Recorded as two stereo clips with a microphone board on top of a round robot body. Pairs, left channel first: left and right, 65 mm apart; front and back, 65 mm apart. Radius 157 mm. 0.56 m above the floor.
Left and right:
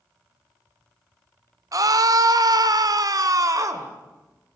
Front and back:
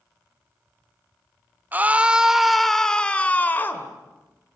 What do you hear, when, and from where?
1.7 s a scream: 115° right, 1.8 m; by 3.9 s 55° right, 2.5 m